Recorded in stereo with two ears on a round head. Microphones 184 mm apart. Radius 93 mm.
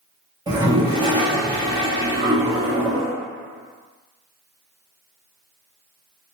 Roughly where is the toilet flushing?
Centre.